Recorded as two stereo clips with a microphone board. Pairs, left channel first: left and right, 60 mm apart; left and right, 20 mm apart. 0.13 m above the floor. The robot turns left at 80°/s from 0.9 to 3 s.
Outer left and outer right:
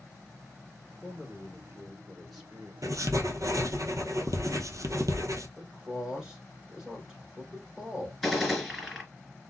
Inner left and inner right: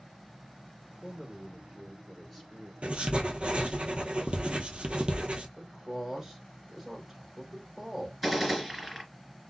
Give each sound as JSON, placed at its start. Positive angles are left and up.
{"t": 1.0, "sound": "a man speaking", "side_deg": 25, "distance_m": 1.3}
{"t": 2.8, "sound": "writing", "side_deg": -75, "distance_m": 0.6}
{"t": 5.6, "sound": "a man speaking", "side_deg": -15, "distance_m": 1.3}
{"t": 8.2, "sound": "a gunshot", "side_deg": -5, "distance_m": 1.9}